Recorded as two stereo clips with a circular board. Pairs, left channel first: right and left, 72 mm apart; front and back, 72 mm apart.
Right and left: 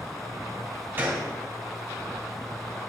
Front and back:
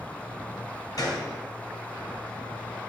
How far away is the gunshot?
About 2.5 m.